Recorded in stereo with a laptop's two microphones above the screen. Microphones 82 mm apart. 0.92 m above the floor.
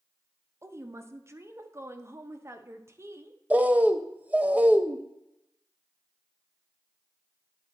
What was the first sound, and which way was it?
A woman speaking, 35° right (ahead or behind).